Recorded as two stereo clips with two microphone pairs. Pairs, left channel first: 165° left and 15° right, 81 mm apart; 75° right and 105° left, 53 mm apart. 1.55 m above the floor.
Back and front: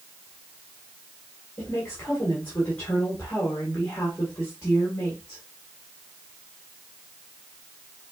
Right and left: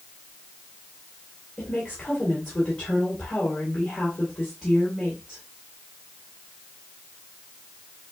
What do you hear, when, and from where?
1.6 s a woman speaking: 135° right, 1.9 m